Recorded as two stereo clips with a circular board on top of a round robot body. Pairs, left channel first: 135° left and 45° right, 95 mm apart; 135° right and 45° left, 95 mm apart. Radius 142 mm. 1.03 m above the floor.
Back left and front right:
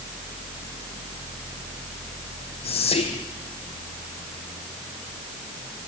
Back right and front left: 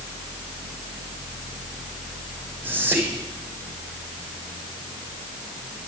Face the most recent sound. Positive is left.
turn(degrees=115)